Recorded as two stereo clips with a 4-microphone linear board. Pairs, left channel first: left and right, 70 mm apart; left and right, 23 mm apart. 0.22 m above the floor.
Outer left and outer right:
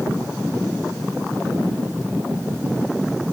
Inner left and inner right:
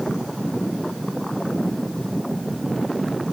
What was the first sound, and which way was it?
Only background noise.